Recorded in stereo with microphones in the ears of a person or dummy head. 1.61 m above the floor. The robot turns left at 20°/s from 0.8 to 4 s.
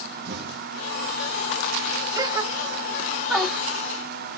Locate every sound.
0.2 s an explosion: 55° right (ahead or behind), 0.9 m
2.1 s a gasp: 25° right (ahead or behind), 3 m; by 3.6 s centre (ahead or behind), 3 m